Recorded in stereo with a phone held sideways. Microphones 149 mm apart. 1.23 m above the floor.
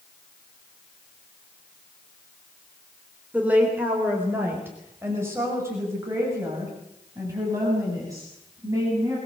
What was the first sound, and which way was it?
A woman speaking, 10° right (ahead or behind).